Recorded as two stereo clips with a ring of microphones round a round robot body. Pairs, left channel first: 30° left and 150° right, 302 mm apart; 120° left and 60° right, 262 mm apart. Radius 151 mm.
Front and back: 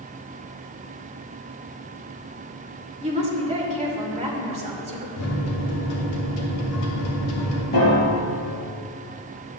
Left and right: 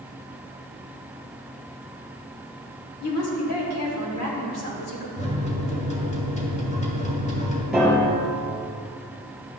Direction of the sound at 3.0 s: 140° left.